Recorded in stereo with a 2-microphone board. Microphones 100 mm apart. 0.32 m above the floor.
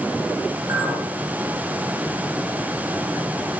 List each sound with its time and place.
0.7 s a clink: 40° right (ahead or behind), 2 m